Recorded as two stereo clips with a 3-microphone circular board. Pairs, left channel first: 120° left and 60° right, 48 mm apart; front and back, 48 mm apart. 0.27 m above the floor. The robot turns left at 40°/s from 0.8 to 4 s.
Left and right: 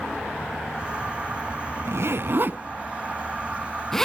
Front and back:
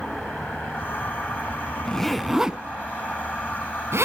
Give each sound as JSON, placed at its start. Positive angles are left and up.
{"t": 1.9, "sound": "a zipper", "azimuth_deg": -75, "distance_m": 0.6}